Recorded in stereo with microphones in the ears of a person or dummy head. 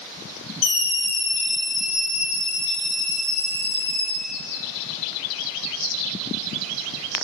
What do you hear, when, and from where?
0.6 s a scream: 75° left (ahead or behind), 1.3 m; by 4.1 s 60° left (ahead or behind), 4.5 m